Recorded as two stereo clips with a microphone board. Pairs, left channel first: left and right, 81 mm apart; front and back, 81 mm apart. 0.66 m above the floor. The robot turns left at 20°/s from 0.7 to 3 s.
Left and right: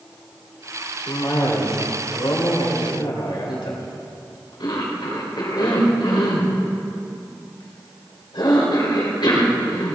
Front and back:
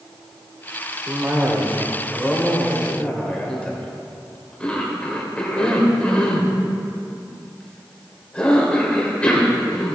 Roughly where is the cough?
Behind left.